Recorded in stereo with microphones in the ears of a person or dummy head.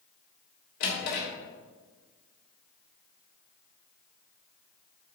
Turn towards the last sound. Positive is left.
turn(degrees=60)  # may be behind; listen again after turning